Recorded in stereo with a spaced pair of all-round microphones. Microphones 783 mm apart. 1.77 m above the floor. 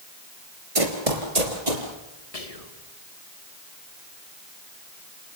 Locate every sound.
0.8 s running footsteps: 40° right (ahead or behind), 2.5 m; by 1.9 s 60° right (ahead or behind), 3.5 m
2.3 s whispering: 50° left (ahead or behind), 2.5 m